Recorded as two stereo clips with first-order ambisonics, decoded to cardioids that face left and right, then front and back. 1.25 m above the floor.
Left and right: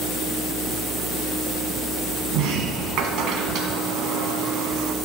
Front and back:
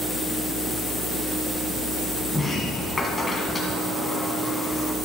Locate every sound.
2.3 s a sliding door: 75° right, 1.7 m